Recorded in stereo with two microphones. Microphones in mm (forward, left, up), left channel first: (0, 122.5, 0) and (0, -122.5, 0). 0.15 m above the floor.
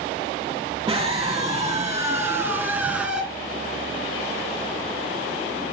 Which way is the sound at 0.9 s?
15° right (ahead or behind).